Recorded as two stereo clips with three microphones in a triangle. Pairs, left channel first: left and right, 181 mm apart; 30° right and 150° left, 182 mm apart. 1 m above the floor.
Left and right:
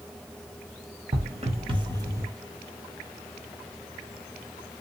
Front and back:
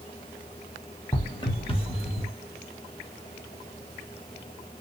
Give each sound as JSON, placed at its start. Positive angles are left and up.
{"t": 1.1, "sound": "footsteps", "azimuth_deg": -85, "distance_m": 1.3}